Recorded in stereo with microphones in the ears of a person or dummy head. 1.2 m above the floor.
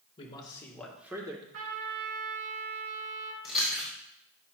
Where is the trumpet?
65° right (ahead or behind), 2.5 m.